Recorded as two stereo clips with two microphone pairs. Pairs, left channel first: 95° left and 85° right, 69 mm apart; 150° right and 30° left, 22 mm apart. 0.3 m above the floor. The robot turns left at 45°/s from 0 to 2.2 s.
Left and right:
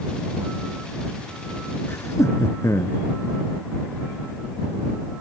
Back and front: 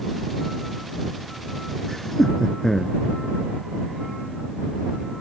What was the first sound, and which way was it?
Laughter, 145° left.